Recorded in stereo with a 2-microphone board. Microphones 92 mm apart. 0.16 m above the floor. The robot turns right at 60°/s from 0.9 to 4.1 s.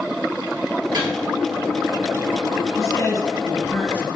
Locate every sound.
0.9 s a microwave: 55° right (ahead or behind), 2 m; by 1.1 s 65° right (ahead or behind), 2 m
2.8 s a man speaking: 80° left, 1.8 m; by 4.1 s 155° left, 1.8 m